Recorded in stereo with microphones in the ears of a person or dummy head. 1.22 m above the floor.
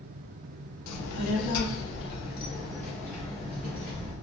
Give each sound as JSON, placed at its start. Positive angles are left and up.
{"t": 0.9, "sound": "a child speaking", "side_deg": 80, "distance_m": 0.8}